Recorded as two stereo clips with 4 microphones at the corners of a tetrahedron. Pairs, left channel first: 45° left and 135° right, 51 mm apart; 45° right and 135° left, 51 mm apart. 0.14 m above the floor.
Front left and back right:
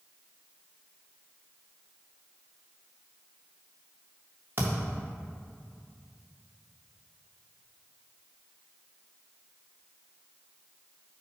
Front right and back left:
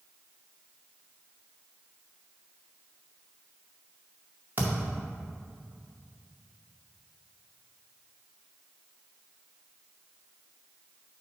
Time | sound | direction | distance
4.6 | a thud | 175° right | 1.9 m